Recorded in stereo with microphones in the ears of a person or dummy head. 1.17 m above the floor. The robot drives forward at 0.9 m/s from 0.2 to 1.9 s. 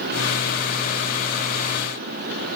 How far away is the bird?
I don't hear a bird.